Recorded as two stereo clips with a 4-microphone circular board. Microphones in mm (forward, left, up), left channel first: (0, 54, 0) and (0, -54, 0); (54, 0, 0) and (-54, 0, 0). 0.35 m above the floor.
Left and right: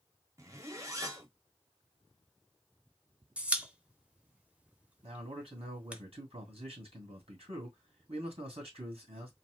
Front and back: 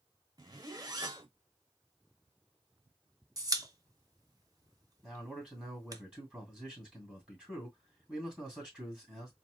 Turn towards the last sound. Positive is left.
turn(degrees=-100)